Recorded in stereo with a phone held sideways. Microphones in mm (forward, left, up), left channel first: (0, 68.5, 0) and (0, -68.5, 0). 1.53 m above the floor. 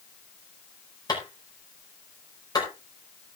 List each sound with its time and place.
1.1 s a clap: 30° left (ahead or behind), 5 m